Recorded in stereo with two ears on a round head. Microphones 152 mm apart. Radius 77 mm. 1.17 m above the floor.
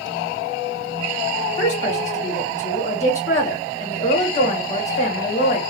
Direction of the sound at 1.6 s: 40° left (ahead or behind).